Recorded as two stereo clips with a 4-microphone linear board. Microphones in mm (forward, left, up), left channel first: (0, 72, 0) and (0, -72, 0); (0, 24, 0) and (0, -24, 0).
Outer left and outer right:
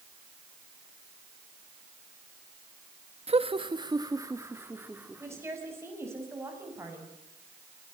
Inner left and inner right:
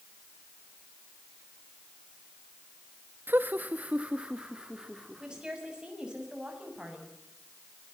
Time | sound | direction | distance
3.3 | laughter | 45° right (ahead or behind) | 1.1 m
5.2 | a woman speaking | 20° right (ahead or behind) | 7 m